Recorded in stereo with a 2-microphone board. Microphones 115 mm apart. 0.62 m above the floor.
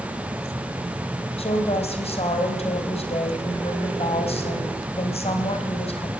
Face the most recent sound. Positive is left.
turn(degrees=60)  # may be behind; listen again after turning